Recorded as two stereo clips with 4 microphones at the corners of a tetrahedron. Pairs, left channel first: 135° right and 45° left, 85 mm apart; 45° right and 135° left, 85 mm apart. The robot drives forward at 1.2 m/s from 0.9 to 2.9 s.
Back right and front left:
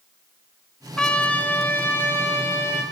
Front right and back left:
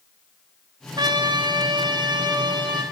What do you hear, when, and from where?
1.0 s a trumpet: 145° left, 1.6 m; by 2.8 s 165° left, 3.5 m